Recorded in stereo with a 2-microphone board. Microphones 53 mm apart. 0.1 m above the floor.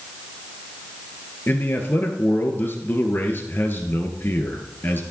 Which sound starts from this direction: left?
A man speaking, at 1.5 s.